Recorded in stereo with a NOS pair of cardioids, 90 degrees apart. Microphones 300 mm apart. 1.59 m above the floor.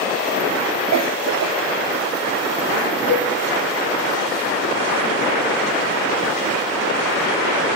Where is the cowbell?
55° left, 3.5 m.